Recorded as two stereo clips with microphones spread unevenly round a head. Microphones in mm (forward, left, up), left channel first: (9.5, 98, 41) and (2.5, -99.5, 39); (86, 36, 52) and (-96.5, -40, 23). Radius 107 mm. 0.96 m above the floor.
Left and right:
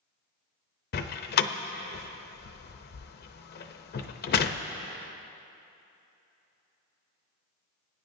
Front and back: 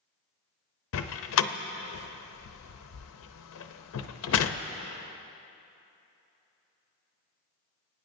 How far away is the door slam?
About 0.6 m.